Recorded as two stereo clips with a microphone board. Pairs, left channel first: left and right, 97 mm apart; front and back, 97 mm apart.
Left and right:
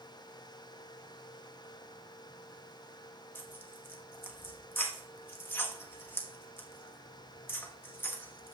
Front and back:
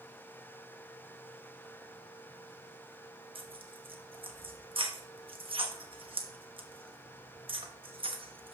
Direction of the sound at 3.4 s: 155° left.